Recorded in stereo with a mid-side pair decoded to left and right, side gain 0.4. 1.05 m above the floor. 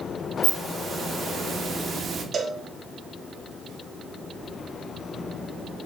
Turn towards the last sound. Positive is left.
turn(degrees=-45)